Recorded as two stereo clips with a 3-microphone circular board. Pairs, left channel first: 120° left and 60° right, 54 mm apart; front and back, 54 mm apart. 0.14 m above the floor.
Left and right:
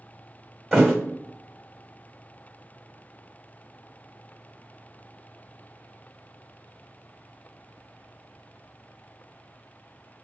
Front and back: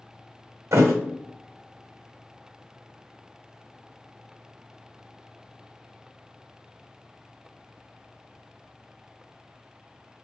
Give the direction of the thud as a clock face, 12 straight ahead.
5 o'clock.